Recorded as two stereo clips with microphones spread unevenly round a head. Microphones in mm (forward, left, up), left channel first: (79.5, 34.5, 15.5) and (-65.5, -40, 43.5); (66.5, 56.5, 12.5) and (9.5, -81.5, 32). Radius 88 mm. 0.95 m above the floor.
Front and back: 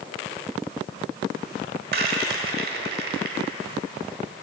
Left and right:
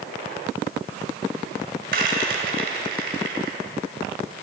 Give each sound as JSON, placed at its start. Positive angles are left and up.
{"t": 1.9, "sound": "a rattle", "azimuth_deg": -140, "distance_m": 1.3}